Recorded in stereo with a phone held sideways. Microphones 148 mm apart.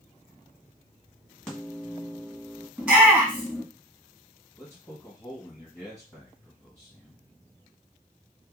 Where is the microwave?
5° left (ahead or behind), 1.5 m.